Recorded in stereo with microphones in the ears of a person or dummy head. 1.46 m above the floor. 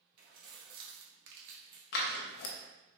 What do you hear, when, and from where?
0.2 s keys jangling: 45° right (ahead or behind), 2 m; by 1.8 s 25° right (ahead or behind), 0.9 m
1.9 s scissors: 55° left (ahead or behind), 0.8 m